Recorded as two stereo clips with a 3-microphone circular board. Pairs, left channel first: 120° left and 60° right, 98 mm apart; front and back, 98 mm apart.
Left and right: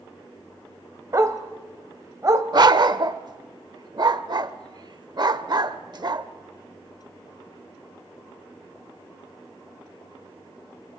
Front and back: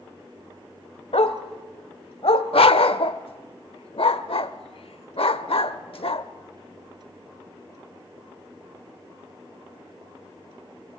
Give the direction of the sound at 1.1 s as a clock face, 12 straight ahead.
12 o'clock.